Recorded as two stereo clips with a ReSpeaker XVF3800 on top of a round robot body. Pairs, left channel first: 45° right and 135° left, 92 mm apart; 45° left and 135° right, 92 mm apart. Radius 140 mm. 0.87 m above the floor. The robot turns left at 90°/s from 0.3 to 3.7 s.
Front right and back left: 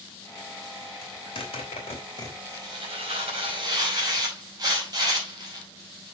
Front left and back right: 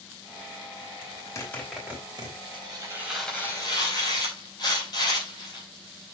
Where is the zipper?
15° left, 3 m; by 2.4 s 105° right, 3 m.